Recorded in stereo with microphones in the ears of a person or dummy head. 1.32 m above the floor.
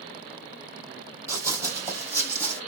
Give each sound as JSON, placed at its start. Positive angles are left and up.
{"t": 1.3, "sound": "running footsteps", "side_deg": -20, "distance_m": 2.5}